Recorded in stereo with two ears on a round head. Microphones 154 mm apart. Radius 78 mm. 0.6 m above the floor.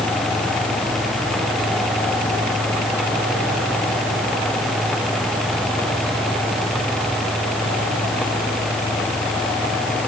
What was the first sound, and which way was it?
Only background noise.